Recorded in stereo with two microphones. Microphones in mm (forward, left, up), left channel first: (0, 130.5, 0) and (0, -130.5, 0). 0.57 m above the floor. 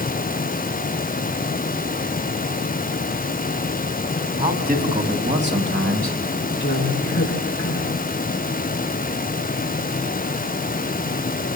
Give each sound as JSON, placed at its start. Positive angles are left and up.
{"t": 4.4, "sound": "a man speaking", "side_deg": -30, "distance_m": 3.5}
{"t": 6.6, "sound": "a man speaking", "side_deg": 40, "distance_m": 5.0}